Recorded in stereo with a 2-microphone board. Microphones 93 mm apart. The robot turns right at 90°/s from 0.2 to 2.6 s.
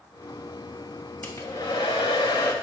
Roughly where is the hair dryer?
Ahead.